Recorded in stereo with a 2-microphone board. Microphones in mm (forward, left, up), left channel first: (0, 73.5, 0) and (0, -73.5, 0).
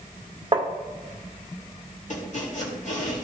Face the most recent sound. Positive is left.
turn(degrees=55)  # may be behind; listen again after turning